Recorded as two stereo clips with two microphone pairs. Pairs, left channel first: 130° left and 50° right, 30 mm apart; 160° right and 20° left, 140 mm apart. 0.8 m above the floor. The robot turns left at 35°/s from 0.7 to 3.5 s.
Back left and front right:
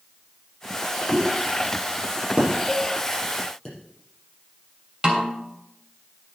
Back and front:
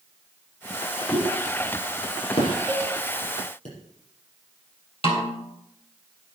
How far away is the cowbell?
About 6.5 m.